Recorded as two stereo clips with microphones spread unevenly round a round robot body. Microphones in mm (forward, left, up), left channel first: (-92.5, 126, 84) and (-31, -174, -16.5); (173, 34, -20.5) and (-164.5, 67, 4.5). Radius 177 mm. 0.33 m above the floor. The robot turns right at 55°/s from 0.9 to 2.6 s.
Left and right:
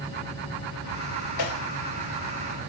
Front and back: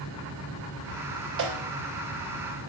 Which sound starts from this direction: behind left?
A snare drum, at 1.4 s.